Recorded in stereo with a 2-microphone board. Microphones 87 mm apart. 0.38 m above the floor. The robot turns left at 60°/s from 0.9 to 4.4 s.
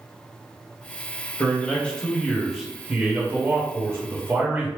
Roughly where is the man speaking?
Left.